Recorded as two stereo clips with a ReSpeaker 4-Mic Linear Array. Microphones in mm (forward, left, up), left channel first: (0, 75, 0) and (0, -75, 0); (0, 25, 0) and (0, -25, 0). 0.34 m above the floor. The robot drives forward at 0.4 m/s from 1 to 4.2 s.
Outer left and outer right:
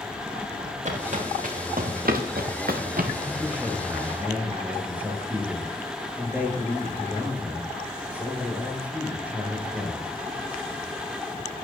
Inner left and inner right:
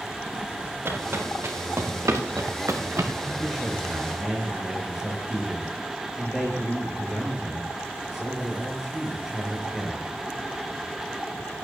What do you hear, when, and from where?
0.8 s footsteps: 50° right (ahead or behind), 4.5 m; by 3.1 s 65° right (ahead or behind), 2.5 m
3.2 s a man speaking: 10° right (ahead or behind), 4.5 m